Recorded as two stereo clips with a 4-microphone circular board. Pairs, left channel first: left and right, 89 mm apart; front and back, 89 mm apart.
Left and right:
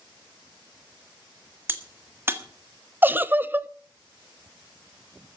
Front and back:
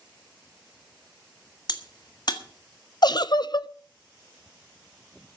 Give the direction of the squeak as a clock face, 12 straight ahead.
I don't hear a squeak.